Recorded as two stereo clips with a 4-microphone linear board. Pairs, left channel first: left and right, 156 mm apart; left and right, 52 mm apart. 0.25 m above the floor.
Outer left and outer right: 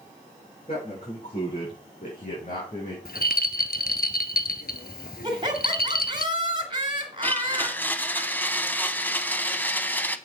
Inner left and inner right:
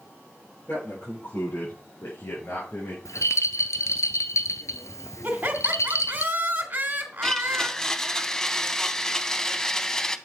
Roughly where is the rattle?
Left.